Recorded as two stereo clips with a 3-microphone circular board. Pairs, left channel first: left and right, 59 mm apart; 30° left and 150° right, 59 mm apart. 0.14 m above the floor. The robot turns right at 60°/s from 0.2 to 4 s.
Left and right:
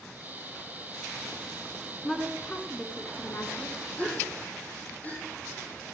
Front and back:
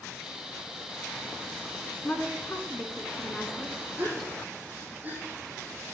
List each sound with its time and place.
2.0 s a woman speaking: 10° left, 1.4 m; by 3.8 s 115° left, 1.4 m
4.0 s a gasp: 150° left, 3 m; by 5.2 s 155° left, 3 m